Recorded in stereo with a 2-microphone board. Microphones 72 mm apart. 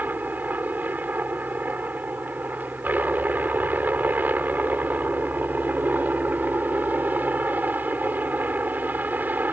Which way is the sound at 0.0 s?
25° right (ahead or behind).